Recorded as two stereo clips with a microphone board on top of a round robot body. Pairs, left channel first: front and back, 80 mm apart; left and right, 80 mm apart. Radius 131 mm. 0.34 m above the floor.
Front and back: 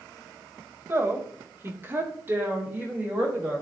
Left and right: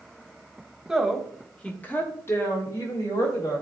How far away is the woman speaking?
About 1.5 m.